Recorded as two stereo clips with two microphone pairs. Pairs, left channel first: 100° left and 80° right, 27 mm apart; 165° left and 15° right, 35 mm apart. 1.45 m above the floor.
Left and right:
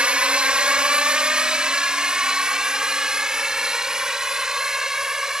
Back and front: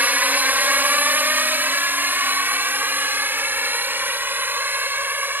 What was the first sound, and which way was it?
A drone, 35° right.